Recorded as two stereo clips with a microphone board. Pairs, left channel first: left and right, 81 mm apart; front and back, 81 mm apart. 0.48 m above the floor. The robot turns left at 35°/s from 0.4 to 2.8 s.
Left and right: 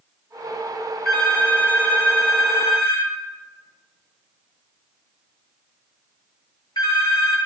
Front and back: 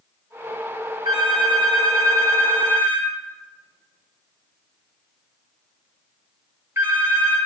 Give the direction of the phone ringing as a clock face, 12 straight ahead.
6 o'clock.